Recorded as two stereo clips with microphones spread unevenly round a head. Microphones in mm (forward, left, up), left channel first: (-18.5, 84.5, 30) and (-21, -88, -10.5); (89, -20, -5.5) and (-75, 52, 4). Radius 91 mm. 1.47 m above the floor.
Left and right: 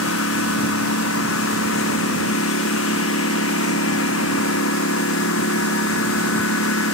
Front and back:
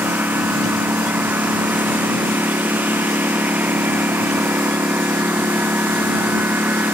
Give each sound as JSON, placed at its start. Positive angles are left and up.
{"t": 0.0, "sound": "a lawn mower", "azimuth_deg": 75}